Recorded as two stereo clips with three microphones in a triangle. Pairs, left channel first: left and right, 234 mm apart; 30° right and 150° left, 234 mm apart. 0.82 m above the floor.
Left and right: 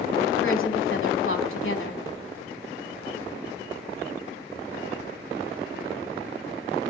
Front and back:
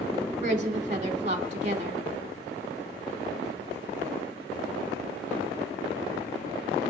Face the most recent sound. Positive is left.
turn(degrees=95)